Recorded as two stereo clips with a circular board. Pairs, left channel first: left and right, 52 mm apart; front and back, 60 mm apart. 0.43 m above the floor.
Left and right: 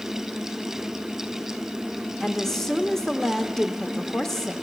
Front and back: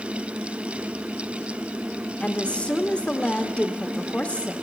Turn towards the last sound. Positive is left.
turn(degrees=20)